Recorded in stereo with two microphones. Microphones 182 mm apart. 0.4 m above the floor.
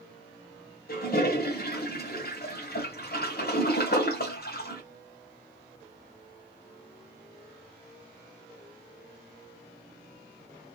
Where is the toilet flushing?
60° left (ahead or behind), 1.3 m.